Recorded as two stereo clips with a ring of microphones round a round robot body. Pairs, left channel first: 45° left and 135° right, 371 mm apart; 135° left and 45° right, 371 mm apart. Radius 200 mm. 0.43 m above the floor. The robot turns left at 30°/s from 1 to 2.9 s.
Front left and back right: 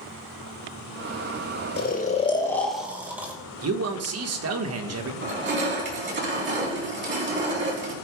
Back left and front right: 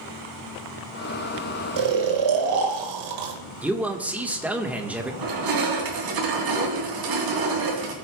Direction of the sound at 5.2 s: 75° right.